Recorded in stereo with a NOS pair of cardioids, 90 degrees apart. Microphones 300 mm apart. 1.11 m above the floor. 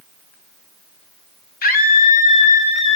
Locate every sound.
1.6 s a scream: 30° left, 1.9 m; by 3.0 s 20° left, 3 m